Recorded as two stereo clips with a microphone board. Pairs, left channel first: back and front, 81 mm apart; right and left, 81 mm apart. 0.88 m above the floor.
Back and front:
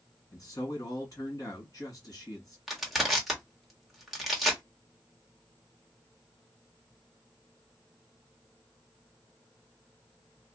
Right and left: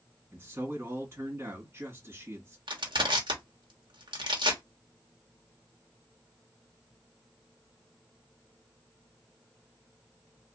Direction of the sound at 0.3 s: 145° left.